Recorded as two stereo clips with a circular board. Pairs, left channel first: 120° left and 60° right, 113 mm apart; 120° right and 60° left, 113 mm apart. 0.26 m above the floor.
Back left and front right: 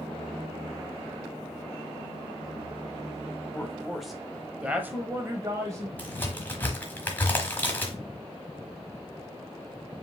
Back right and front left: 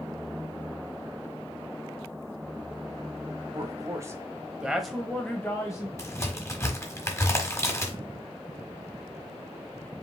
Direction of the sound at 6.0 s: 175° right.